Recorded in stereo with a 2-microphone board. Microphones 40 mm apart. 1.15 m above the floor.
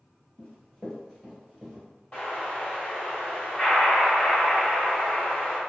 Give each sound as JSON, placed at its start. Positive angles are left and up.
{"t": 0.4, "sound": "running footsteps", "side_deg": 20, "distance_m": 1.1}
{"t": 2.1, "sound": "an explosion", "side_deg": 25, "distance_m": 1.0}